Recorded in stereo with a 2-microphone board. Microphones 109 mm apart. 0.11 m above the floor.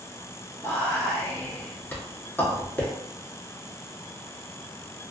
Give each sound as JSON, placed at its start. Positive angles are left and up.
{"t": 0.6, "sound": "whispering", "side_deg": 20, "distance_m": 1.1}